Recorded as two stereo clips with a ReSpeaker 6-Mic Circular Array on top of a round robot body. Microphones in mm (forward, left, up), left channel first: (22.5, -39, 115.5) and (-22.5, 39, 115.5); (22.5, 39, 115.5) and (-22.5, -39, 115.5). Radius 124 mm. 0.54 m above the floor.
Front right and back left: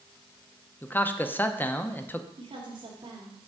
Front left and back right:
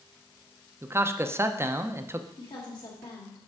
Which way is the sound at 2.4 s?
95° left.